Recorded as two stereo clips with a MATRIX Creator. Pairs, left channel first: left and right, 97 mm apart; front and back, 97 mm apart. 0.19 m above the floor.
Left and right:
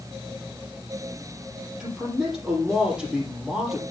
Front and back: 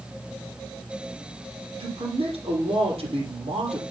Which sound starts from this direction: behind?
A man speaking, at 1.8 s.